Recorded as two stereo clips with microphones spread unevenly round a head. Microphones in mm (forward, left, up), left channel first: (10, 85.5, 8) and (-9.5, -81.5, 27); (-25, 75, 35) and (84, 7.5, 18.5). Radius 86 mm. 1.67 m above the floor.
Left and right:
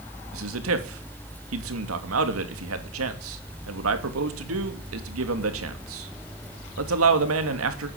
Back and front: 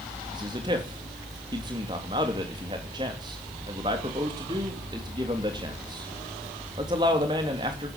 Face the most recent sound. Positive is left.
turn(degrees=-100)